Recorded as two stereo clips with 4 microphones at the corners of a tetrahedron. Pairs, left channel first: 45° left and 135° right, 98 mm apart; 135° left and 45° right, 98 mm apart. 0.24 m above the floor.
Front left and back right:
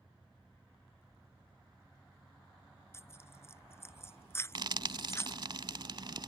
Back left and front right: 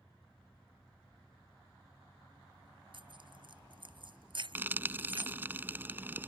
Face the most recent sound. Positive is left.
turn(degrees=-110)